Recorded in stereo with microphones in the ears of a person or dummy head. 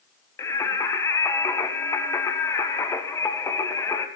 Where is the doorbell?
I don't hear a doorbell.